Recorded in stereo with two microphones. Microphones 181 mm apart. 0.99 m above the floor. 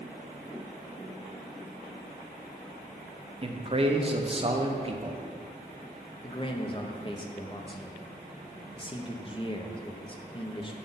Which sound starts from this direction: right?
A man speaking, at 3.4 s.